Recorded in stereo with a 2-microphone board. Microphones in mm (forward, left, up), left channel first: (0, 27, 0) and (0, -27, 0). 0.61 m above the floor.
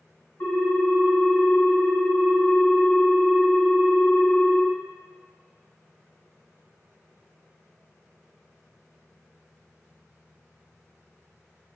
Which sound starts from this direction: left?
A ringtone, at 0.4 s.